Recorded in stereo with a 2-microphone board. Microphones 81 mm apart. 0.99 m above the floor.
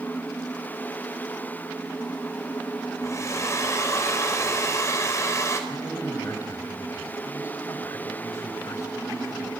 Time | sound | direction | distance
3.0 | a hair dryer | 40° left (ahead or behind) | 5 m
5.7 | a man speaking | 45° left (ahead or behind) | 4.5 m